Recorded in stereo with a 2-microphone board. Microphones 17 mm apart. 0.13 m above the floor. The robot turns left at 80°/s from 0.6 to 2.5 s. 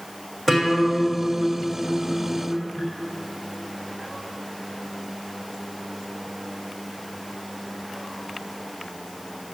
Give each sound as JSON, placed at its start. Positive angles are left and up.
{"t": 0.5, "sound": "a guitar", "azimuth_deg": 15, "distance_m": 5.5}